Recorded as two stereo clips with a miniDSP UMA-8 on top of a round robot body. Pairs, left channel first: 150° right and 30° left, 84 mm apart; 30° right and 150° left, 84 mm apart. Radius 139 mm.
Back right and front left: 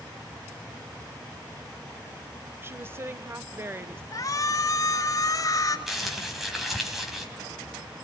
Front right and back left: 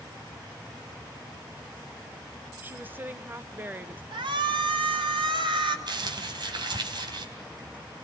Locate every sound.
2.6 s a woman speaking: 85° left, 1.1 m
4.1 s a shout: 165° left, 3 m
5.9 s crumpling: 120° left, 3 m